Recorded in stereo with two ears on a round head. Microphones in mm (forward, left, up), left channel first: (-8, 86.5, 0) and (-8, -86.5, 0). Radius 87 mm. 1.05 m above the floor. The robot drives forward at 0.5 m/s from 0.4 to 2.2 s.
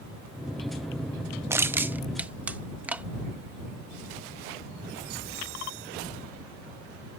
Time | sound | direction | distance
1.5 | crushing | 15° right (ahead or behind) | ?